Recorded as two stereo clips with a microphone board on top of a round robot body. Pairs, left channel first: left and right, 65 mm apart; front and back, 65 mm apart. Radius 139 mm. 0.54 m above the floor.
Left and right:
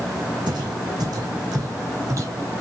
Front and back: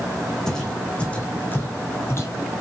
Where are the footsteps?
80° right, 2.5 m; by 2.5 s 45° right, 2.5 m.